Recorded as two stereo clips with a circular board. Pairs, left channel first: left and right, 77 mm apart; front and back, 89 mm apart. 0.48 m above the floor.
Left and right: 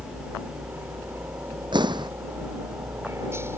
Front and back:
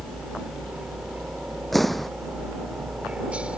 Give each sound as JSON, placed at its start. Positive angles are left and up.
{"t": 0.0, "sound": "a helicopter", "azimuth_deg": -120}
{"t": 1.7, "sound": "an explosion", "azimuth_deg": -90}